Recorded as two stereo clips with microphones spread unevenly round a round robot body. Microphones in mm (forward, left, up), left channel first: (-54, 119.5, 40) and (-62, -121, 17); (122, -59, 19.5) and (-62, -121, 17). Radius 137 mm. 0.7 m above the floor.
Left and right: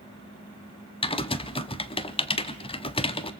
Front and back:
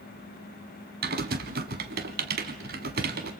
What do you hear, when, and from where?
1.0 s typing on a keyboard: 150° left, 0.9 m